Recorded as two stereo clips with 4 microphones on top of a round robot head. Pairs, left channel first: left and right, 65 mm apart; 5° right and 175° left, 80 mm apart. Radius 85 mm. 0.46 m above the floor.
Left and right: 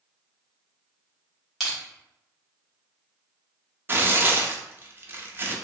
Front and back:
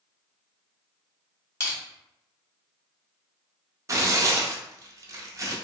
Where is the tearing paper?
140° right, 0.6 m.